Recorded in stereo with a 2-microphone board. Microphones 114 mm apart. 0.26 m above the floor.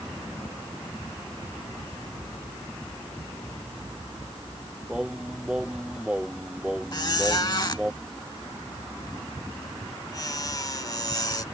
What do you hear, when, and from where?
4.9 s singing: 10° right (ahead or behind)
6.9 s a squeak: 40° left (ahead or behind)